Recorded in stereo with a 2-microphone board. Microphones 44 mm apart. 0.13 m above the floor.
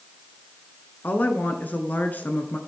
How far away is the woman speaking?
About 1.4 m.